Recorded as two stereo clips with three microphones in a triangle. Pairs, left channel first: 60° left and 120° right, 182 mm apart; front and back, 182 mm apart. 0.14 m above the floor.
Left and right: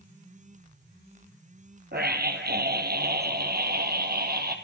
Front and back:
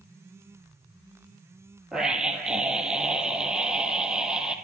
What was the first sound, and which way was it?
A scream, 95° right.